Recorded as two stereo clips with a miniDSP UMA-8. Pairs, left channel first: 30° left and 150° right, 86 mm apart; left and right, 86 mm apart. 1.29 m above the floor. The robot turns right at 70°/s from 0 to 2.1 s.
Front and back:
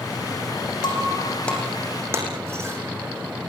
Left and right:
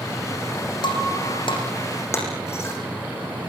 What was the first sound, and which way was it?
Breaking glass, 60° left.